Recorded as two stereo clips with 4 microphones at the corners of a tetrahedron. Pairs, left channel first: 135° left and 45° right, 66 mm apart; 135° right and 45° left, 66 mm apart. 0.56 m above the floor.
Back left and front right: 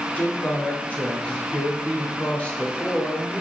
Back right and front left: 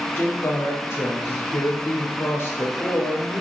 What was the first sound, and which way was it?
A woman speaking, 170° right.